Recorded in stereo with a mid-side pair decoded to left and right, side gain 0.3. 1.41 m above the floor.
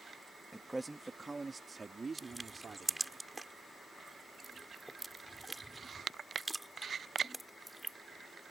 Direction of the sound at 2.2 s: 10° right.